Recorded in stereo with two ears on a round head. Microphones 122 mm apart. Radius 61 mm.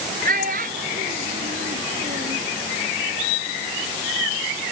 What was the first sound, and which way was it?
A child speaking, 60° right (ahead or behind).